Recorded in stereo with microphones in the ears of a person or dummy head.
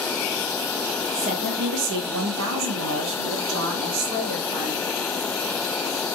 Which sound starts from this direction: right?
A woman speaking, at 1.1 s.